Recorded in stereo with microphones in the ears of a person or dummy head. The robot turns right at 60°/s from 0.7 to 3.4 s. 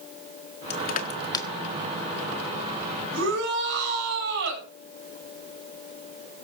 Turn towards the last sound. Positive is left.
turn(degrees=-65)  # may be behind; listen again after turning